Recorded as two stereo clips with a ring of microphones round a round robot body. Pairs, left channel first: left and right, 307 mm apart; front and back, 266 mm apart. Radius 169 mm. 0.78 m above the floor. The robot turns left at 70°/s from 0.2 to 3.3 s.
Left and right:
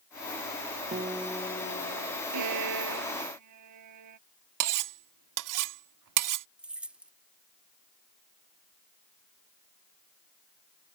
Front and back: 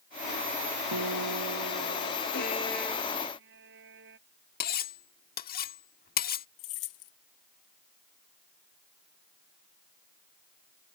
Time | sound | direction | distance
0.9 | a guitar | 155° right | ?
2.3 | a violin | 55° right | ?
4.6 | cutlery clinking | 60° right | ?
6.6 | keys jangling | 5° right | ?